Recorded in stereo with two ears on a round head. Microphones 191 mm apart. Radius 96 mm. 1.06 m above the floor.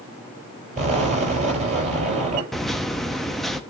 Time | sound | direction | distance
0.8 | an explosion | 40° right (ahead or behind) | 7 m
2.5 | a microwave | centre (ahead or behind) | 0.8 m